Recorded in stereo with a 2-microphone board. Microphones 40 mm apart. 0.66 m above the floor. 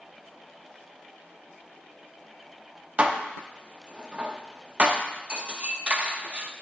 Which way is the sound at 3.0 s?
30° right (ahead or behind).